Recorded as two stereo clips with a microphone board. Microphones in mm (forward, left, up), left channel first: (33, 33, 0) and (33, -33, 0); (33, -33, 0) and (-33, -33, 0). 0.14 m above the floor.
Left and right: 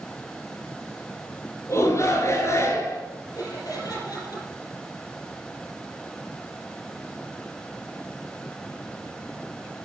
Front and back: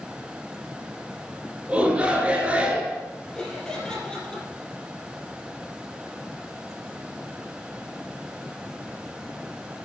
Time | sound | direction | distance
1.7 | a shout | 115° left | 2.5 m
3.4 | laughter | 75° left | 4 m